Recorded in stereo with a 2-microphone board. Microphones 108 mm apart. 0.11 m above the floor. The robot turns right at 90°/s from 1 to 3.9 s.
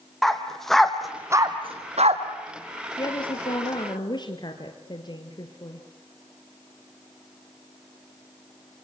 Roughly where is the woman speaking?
Ahead left.